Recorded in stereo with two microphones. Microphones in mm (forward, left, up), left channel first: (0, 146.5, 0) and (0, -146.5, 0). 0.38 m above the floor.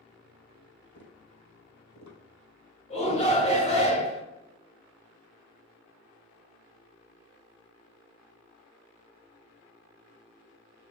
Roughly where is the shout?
Left.